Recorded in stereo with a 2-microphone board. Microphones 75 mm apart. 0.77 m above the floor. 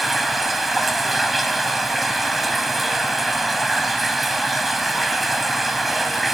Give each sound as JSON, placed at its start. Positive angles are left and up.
{"t": 0.0, "sound": "running water", "side_deg": 0, "distance_m": 1.1}